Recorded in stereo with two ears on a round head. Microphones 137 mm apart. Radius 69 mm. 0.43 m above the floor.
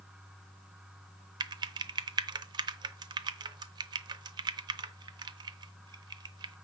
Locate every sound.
1.4 s typing on a keyboard: 30° right (ahead or behind), 0.8 m